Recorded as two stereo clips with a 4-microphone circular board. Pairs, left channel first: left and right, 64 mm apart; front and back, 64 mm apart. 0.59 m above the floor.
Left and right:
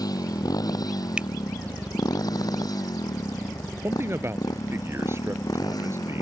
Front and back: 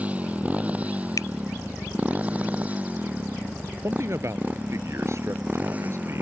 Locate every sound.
0.0 s a motorcycle: 110° left
1.2 s a finger snap: 15° right
3.8 s a man speaking: 140° right